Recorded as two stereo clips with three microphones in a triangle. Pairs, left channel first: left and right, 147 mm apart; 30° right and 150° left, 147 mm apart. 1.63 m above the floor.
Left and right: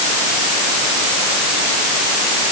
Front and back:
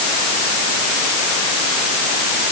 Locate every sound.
Only background noise.